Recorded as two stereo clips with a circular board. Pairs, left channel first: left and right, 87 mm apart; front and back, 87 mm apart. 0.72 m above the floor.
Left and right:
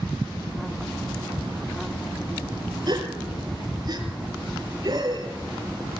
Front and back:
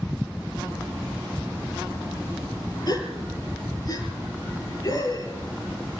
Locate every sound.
2.9 s a gasp: 45° right, 3.5 m